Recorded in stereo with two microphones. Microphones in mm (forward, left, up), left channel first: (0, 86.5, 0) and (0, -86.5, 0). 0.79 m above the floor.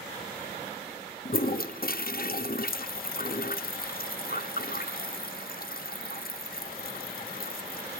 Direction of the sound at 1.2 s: 60° left (ahead or behind).